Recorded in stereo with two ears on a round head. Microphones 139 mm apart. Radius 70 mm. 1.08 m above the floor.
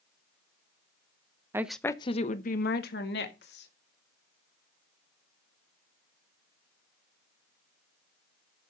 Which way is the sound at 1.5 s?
15° right (ahead or behind).